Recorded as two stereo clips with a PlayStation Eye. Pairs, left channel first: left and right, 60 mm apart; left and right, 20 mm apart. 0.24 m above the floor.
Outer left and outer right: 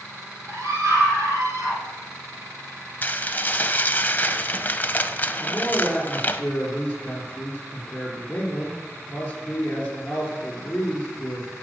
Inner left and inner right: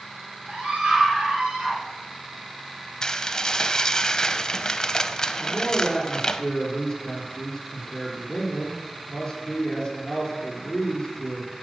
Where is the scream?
70° right (ahead or behind), 5.5 m.